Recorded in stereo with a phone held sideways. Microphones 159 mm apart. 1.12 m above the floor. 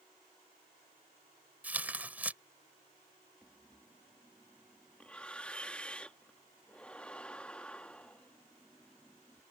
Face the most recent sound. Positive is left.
turn(degrees=10)  # may be behind; listen again after turning